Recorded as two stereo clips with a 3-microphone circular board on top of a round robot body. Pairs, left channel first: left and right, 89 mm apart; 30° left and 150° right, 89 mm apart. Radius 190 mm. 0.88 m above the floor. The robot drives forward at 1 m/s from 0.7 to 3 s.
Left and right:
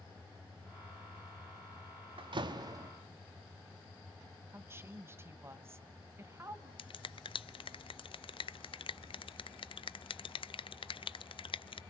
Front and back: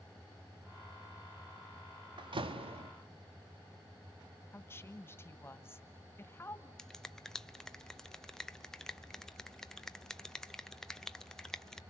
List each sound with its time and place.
2.2 s a door slam: 115° right, 1.0 m; by 2.9 s 140° right, 1.5 m
4.5 s a woman speaking: 30° right, 1.5 m
6.8 s a finger snap: 115° left, 0.5 m